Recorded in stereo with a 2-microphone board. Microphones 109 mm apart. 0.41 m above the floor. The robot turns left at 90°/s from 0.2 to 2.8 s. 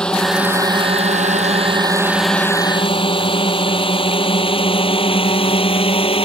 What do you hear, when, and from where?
0.0 s a drone: 5° left (ahead or behind); by 6.3 s 55° left (ahead or behind)